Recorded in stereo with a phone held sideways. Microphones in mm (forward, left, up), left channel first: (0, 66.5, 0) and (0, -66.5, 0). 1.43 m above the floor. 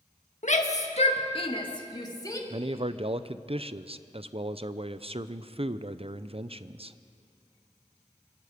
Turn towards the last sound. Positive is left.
turn(degrees=-50)  # may be behind; listen again after turning